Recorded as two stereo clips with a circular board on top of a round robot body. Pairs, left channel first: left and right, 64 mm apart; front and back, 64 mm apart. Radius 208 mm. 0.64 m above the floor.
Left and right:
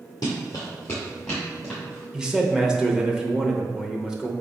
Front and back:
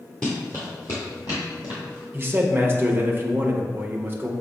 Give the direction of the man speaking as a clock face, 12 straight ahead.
5 o'clock.